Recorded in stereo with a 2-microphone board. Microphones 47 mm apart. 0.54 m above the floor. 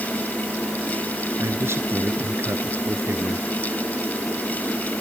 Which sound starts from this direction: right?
A man speaking, at 1.4 s.